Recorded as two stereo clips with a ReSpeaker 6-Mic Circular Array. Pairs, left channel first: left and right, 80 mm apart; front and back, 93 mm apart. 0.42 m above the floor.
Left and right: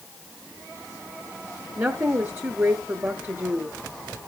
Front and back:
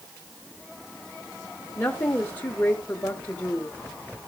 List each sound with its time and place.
1.8 s a woman speaking: 55° right, 1.0 m